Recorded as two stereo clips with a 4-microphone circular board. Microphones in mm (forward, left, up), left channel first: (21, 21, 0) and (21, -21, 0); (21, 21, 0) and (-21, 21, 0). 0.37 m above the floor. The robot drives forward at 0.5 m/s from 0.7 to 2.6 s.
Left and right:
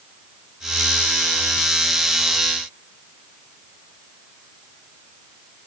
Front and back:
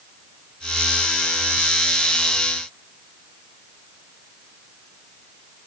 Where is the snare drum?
I don't hear a snare drum.